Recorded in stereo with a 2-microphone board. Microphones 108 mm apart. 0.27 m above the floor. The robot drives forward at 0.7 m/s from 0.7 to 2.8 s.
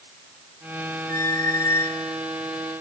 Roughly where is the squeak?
Left.